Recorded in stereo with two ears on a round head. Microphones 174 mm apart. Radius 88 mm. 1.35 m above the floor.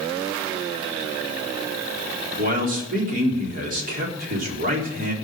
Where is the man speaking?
45° right (ahead or behind), 4 m.